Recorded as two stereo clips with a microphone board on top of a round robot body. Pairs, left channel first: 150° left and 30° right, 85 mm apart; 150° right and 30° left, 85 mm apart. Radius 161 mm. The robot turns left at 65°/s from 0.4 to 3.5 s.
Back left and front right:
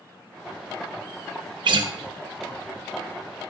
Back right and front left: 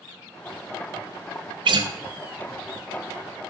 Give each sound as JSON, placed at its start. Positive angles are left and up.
{"t": 1.6, "sound": "a guitar", "azimuth_deg": 5, "distance_m": 0.6}